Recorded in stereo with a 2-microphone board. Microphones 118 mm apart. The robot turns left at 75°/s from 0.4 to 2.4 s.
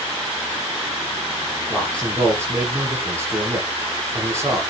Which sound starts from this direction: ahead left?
A man speaking, at 1.7 s.